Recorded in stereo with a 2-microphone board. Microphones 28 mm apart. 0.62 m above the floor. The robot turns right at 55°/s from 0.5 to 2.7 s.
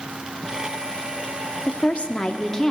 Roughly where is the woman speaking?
Left.